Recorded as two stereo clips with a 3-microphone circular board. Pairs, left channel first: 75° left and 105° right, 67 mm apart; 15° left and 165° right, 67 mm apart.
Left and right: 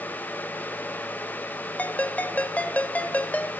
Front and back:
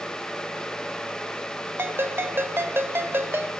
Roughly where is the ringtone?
Behind left.